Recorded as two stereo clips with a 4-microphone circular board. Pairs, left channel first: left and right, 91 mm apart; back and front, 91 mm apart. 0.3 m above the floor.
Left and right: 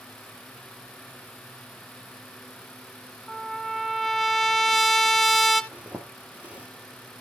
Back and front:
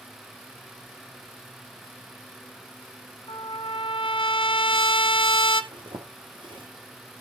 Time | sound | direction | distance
3.3 | a trumpet | straight behind | 1.0 m
5.7 | a zipper | 15° right | 2.5 m